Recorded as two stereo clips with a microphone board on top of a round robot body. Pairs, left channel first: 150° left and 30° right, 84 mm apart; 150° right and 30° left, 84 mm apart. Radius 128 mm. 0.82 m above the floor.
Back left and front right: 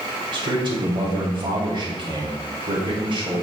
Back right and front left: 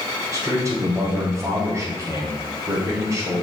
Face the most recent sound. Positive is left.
turn(degrees=-25)